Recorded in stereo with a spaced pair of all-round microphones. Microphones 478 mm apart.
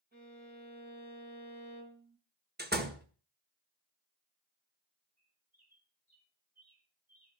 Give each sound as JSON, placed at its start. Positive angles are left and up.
{"t": 0.1, "sound": "a violin", "side_deg": -20, "distance_m": 3.5}
{"t": 2.6, "sound": "a door slam", "side_deg": -20, "distance_m": 1.4}
{"t": 5.2, "sound": "a bird", "side_deg": -55, "distance_m": 5.0}